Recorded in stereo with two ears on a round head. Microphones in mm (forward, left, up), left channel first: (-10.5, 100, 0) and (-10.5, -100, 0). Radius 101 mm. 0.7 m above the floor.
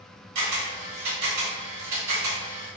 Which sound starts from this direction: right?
A camera shutter, at 0.3 s.